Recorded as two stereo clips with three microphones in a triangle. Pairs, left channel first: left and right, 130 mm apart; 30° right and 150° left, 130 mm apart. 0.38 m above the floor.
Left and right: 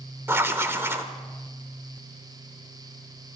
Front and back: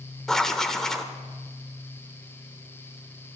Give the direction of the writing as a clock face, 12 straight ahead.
4 o'clock.